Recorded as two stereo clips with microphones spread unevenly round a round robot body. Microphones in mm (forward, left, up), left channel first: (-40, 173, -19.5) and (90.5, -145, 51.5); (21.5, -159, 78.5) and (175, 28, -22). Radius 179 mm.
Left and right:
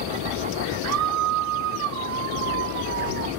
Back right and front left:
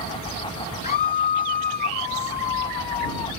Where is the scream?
75° right; by 3.3 s 50° right.